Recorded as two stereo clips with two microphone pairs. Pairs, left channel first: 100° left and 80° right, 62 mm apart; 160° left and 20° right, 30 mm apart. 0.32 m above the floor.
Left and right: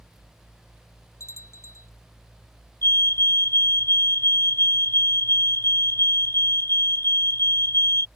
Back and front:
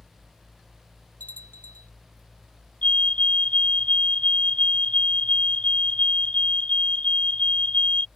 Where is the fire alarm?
125° left.